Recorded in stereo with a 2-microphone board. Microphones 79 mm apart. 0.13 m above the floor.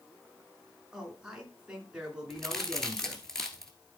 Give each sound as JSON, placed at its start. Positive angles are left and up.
{"t": 0.9, "sound": "a man speaking", "side_deg": -10, "distance_m": 1.7}
{"t": 2.3, "sound": "a crack", "side_deg": 5, "distance_m": 1.3}